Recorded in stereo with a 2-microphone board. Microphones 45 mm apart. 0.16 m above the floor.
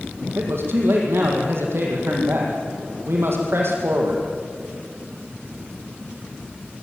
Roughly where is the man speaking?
Right.